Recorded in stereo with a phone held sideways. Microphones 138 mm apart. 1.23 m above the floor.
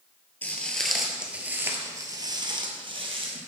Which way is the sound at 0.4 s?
10° left (ahead or behind).